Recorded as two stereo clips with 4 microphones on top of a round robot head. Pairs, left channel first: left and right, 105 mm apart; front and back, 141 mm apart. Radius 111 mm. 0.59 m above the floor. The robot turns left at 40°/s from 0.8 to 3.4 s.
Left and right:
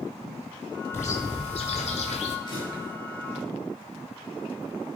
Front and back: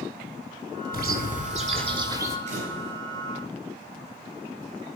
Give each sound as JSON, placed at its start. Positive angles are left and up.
{"t": 0.9, "sound": "a bird", "azimuth_deg": 165, "distance_m": 1.8}
{"t": 2.5, "sound": "a camera shutter", "azimuth_deg": 150, "distance_m": 5.5}